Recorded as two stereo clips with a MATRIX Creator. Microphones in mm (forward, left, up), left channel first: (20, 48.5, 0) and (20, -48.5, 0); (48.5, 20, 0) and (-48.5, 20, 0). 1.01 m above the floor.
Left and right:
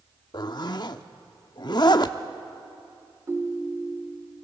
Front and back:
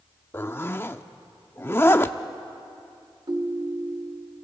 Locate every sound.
0.3 s a zipper: 60° left, 0.7 m
3.3 s a ringtone: 150° right, 1.3 m